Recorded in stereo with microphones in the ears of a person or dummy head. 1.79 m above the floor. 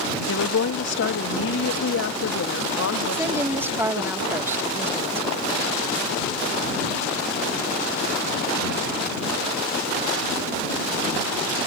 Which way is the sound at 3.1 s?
10° right (ahead or behind).